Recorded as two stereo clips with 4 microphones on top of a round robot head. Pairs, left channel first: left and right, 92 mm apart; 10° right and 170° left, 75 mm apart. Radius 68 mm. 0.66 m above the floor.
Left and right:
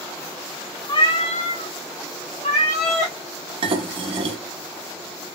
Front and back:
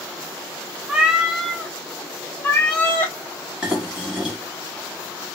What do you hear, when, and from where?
0.9 s a cat meowing: 105° left, 0.6 m; by 3.2 s 55° left, 1.8 m
3.6 s dishes clattering: 110° right, 0.8 m